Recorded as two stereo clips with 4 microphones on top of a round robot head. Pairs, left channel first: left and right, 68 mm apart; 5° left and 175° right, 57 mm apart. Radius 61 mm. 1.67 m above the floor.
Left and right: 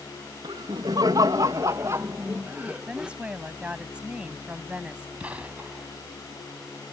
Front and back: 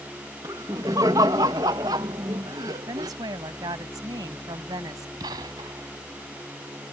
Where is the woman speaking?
170° right.